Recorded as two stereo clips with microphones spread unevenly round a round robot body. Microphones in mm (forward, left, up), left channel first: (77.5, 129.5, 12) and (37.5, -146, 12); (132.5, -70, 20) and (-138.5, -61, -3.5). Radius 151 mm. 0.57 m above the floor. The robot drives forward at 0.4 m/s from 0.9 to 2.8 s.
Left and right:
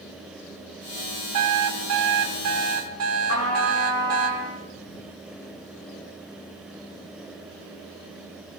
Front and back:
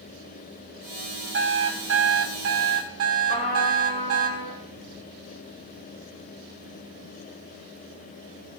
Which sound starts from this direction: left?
A trumpet, at 3.3 s.